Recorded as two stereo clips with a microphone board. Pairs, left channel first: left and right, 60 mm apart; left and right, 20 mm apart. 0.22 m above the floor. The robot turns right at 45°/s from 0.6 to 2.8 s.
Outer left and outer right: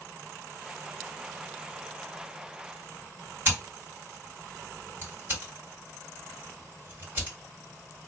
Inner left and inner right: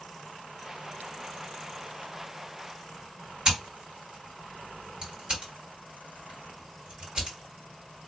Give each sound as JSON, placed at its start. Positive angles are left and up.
{"t": 3.5, "sound": "scissors", "side_deg": -40, "distance_m": 2.5}